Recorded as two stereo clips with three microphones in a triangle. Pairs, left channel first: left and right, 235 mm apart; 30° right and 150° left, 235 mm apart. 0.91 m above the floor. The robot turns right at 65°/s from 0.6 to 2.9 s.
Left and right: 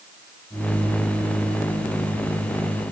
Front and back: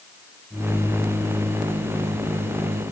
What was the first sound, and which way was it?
Only background noise.